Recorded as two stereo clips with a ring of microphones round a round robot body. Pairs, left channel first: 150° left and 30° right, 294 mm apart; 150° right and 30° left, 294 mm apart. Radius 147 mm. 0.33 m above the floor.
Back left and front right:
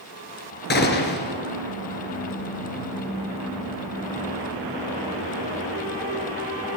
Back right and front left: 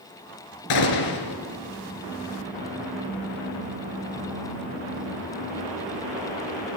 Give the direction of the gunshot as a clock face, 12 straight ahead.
5 o'clock.